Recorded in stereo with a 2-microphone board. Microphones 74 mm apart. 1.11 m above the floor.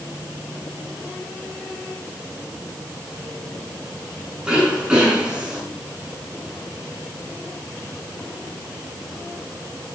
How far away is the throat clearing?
About 8.5 m.